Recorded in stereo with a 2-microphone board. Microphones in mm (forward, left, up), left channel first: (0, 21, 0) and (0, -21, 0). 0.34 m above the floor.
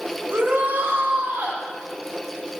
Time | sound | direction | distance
0.3 | a shout | 65° right (ahead or behind) | 3.5 m